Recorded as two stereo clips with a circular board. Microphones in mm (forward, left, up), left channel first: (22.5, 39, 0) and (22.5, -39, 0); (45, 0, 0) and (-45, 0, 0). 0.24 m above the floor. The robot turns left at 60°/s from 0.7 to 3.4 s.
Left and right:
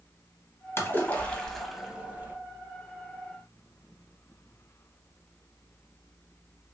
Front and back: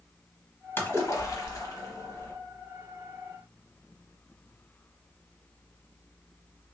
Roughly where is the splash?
Ahead left.